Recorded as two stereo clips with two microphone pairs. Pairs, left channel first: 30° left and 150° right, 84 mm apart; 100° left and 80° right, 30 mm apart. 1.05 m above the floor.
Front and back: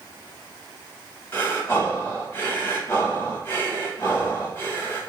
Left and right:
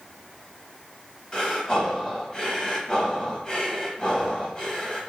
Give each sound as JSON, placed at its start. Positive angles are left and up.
{"t": 1.3, "sound": "breathing", "azimuth_deg": 65, "distance_m": 1.0}